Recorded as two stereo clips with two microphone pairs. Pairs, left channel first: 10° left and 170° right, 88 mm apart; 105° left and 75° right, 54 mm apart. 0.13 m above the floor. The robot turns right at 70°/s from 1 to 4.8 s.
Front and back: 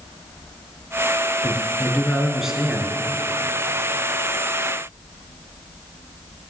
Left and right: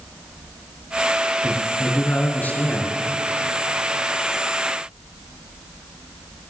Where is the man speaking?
40° left, 1.8 m; by 2.9 s 145° left, 1.8 m.